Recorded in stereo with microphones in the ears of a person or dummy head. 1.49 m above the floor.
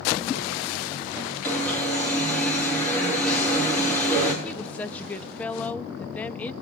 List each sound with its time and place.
1.4 s an alarm: centre (ahead or behind), 4 m
4.4 s a woman speaking: 15° left (ahead or behind), 0.6 m